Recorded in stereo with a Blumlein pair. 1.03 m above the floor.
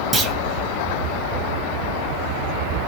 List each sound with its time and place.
0.1 s a clunk: 15° right, 0.7 m